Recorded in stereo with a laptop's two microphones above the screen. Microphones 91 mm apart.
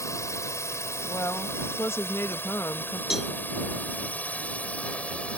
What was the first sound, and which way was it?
A drone, 35° left (ahead or behind).